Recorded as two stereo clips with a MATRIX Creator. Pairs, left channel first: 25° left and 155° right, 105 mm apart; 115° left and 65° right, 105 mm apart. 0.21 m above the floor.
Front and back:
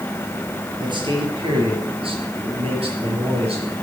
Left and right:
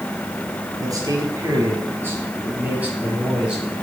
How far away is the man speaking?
About 5 m.